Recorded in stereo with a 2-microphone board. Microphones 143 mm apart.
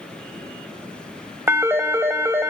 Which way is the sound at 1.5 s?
15° right (ahead or behind).